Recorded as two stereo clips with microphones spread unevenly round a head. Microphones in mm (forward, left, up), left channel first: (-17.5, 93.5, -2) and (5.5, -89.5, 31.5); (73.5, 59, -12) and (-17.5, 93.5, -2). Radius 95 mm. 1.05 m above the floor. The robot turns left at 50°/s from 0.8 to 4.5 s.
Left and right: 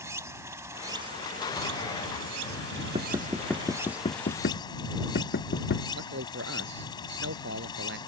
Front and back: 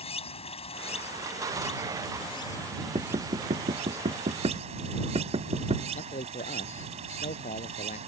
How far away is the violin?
I don't hear a violin.